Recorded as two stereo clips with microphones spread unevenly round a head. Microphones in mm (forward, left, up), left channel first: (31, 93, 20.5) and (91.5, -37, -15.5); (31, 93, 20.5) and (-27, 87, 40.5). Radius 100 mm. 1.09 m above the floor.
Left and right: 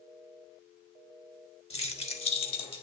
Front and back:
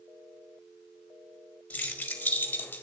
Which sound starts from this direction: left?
Keys jangling, at 1.7 s.